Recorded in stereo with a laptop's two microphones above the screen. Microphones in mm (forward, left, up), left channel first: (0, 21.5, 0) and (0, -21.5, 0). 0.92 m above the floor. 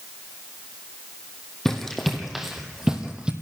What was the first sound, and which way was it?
Running footsteps, 5° left (ahead or behind).